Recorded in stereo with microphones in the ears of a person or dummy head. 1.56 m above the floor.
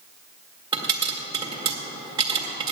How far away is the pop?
About 1.6 m.